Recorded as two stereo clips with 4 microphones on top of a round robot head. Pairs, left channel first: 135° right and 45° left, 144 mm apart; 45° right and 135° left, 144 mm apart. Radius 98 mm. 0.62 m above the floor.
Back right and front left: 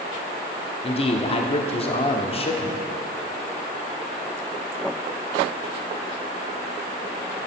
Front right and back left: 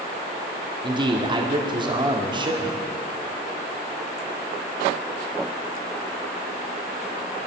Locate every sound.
0.8 s a man speaking: 175° right, 1.8 m